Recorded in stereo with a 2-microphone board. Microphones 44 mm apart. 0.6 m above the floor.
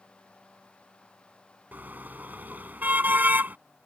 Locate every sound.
1.7 s a car horn: 40° right (ahead or behind)